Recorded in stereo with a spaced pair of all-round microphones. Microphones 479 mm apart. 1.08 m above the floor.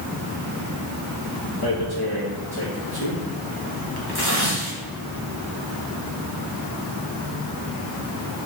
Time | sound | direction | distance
1.6 | tearing paper | 50° left (ahead or behind) | 1.6 m